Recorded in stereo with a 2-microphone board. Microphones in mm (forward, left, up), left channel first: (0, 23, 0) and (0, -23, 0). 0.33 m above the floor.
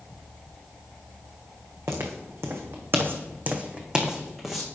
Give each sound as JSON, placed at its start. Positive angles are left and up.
{"t": 1.9, "sound": "footsteps", "side_deg": -75, "distance_m": 1.5}